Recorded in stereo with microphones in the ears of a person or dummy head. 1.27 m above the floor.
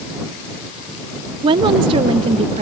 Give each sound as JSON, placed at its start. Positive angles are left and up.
{"t": 1.4, "sound": "a woman speaking", "side_deg": -25}